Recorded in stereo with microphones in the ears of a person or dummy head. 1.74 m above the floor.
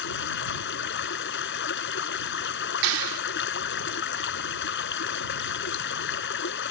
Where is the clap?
80° right.